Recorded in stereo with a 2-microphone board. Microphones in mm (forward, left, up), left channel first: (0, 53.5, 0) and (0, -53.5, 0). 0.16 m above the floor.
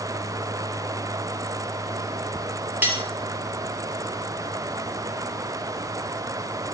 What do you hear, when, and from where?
2.8 s cutlery clinking: 15° right (ahead or behind), 2.5 m